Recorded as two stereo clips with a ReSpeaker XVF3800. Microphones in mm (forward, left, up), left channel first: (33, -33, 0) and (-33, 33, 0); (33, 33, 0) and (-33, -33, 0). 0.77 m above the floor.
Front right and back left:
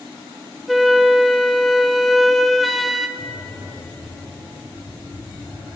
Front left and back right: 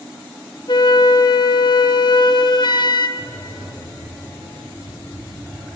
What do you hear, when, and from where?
0.7 s a flute: 45° left, 0.5 m
3.2 s breathing: 30° right, 6 m